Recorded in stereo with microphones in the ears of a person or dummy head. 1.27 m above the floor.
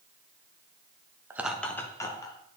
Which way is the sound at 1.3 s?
15° right (ahead or behind).